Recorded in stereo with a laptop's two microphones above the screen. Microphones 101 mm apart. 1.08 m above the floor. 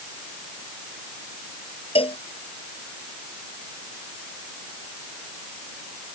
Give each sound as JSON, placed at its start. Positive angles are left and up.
{"t": 1.9, "sound": "a cowbell", "side_deg": 70}